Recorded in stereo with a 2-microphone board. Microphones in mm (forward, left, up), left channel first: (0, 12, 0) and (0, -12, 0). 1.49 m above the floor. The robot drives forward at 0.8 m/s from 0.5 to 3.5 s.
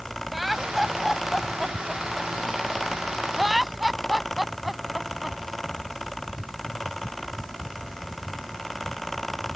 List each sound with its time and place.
0.3 s laughter: 10° right (ahead or behind); by 5.4 s 5° right (ahead or behind)